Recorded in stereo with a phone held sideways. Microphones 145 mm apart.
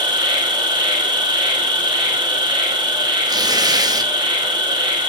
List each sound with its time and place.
0.0 s an insect: 30° right (ahead or behind), 2.5 m
3.3 s tearing paper: 30° right (ahead or behind), 1.0 m